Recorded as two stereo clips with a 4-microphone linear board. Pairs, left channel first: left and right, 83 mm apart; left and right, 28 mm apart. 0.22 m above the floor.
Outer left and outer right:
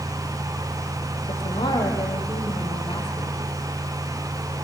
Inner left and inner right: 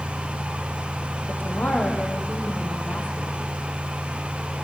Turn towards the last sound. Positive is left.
turn(degrees=75)  # may be behind; listen again after turning